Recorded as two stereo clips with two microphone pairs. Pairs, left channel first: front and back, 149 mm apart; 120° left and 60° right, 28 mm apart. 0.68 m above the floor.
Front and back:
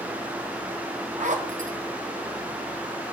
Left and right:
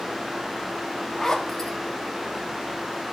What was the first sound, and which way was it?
A zipper, 170° right.